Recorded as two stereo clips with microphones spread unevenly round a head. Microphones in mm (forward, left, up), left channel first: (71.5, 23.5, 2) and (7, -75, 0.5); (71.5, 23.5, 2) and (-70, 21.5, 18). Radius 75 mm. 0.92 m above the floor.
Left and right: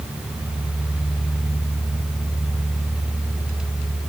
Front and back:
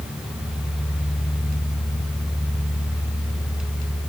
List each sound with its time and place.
Only background noise.